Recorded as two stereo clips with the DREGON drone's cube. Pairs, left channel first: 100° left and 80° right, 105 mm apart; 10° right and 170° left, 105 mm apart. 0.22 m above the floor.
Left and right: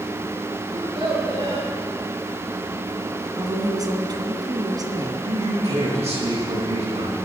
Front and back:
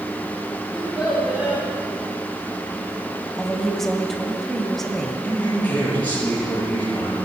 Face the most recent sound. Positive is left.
turn(degrees=-85)